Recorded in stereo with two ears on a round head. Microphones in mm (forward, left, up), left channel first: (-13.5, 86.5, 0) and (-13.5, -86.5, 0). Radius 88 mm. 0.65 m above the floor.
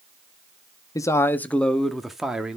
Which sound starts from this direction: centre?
A man speaking, at 0.9 s.